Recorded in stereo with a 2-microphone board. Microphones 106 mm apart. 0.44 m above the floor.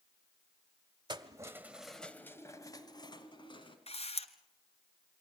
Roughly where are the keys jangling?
Right.